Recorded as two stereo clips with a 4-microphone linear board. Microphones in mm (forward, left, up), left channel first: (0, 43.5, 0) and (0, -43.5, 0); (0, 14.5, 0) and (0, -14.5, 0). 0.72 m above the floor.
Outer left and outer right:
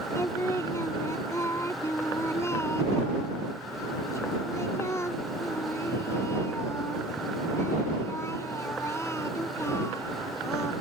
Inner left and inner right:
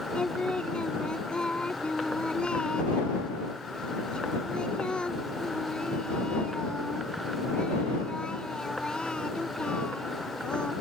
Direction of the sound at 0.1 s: 35° left (ahead or behind).